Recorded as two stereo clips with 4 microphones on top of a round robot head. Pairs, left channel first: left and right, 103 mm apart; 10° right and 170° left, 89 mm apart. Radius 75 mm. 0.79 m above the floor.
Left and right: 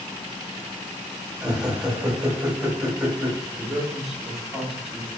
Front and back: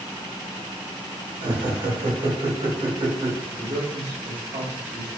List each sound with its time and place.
1.4 s laughter: 170° right, 1.4 m
3.5 s a man speaking: 175° right, 1.4 m